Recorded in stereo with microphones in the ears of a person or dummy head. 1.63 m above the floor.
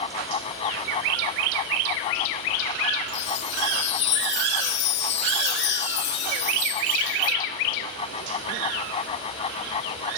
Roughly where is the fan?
Left.